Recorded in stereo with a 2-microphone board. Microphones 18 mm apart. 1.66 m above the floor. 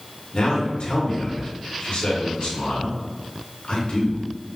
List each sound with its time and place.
0.3 s a man speaking: 80° left, 1.8 m